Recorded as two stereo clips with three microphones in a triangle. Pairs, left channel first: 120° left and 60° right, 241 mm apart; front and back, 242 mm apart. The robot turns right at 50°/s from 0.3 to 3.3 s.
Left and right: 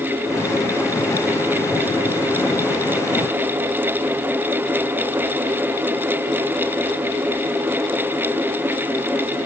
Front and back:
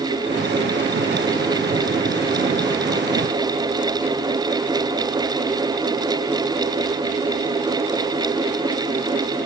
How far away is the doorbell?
No doorbell in this recording.